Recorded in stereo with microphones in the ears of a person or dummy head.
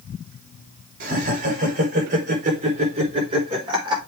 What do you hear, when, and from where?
1.0 s laughter: 50° right (ahead or behind), 4.5 m; by 4.0 s 25° right (ahead or behind), 4.5 m